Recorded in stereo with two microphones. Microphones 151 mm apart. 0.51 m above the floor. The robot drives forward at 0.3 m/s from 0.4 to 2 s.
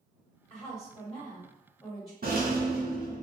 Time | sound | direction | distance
0.5 | a woman speaking | 20° left (ahead or behind) | 1.6 m
2.2 | a rattle | 75° right (ahead or behind) | 0.6 m